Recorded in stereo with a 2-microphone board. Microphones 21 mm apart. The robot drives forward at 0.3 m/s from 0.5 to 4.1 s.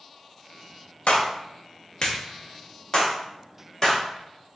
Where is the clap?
65° left (ahead or behind), 0.6 m; by 4.0 s 25° left (ahead or behind), 1.2 m.